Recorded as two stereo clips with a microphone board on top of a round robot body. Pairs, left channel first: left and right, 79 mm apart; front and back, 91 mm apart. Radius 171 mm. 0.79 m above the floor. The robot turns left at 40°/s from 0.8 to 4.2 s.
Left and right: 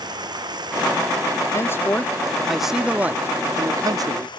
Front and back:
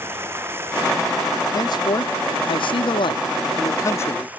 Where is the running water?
115° right; by 4.4 s 105° left.